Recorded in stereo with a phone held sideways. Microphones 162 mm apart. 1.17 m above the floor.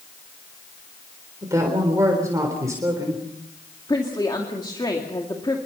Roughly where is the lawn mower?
No lawn mower in this recording.